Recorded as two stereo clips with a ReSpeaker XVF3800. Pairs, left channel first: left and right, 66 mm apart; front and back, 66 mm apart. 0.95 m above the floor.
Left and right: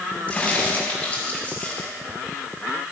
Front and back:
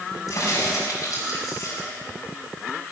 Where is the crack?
20° left, 6 m.